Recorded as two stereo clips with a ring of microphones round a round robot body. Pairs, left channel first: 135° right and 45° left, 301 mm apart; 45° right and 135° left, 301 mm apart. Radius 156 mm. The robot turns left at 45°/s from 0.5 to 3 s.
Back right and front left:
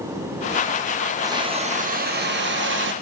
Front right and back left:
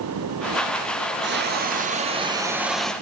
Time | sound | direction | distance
1.2 | a hiss | 115° left | 0.7 m